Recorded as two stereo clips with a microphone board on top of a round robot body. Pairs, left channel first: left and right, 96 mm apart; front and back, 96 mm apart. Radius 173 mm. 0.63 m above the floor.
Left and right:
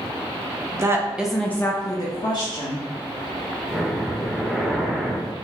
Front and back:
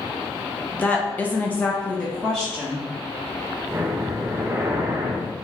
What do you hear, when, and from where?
0.7 s a woman speaking: 65° right, 0.9 m; by 2.9 s 85° left, 1.5 m
3.7 s breathing: 175° left, 0.7 m